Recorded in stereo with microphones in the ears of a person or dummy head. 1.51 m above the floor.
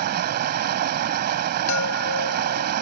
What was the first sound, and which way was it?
Running water, 50° right (ahead or behind).